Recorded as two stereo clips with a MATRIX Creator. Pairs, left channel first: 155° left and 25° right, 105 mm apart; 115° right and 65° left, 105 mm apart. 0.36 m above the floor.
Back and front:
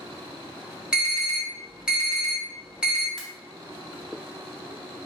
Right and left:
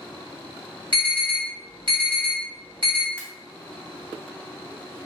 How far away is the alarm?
About 1.8 m.